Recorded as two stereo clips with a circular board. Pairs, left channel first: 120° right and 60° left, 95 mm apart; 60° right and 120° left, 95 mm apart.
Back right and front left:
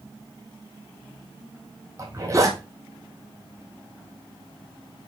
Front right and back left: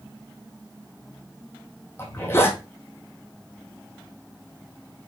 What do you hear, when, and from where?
2.0 s a zipper: 5° left, 1.7 m